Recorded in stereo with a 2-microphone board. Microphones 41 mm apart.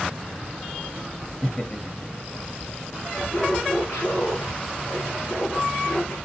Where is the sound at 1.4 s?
25° left (ahead or behind), 1.4 m.